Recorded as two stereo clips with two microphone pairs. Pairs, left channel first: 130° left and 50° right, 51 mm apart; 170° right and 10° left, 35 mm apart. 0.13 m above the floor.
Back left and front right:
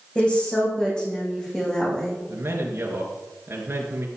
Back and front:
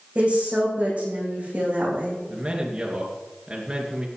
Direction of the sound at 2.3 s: 55° right.